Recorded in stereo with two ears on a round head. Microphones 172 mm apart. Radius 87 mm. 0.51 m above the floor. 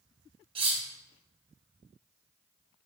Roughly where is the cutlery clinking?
Right.